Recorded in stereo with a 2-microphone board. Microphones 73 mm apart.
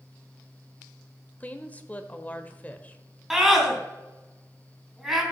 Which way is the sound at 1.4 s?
20° left (ahead or behind).